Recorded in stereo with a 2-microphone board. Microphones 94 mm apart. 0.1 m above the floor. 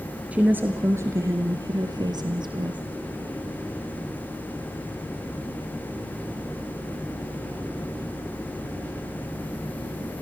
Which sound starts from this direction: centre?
A woman speaking, at 0.3 s.